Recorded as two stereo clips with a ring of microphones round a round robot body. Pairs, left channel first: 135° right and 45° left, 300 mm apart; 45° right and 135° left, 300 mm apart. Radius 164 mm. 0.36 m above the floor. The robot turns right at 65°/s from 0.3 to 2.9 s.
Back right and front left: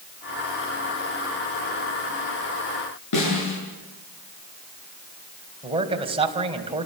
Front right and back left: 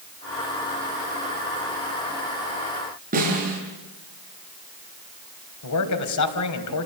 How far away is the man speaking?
About 3 m.